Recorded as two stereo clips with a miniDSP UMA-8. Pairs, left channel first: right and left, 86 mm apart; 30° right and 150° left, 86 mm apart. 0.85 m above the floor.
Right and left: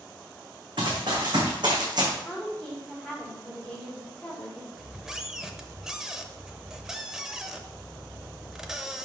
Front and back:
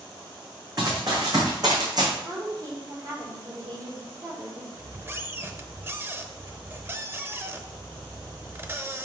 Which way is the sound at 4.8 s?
165° left.